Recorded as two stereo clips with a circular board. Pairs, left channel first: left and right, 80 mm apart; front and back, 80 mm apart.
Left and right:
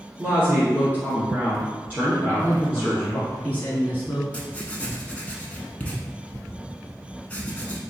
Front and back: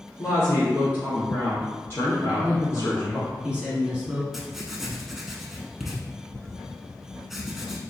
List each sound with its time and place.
0.2 s a woman speaking: 40° right, 1.4 m
2.3 s a man speaking: 125° left, 1.7 m
4.3 s writing: 100° left, 0.6 m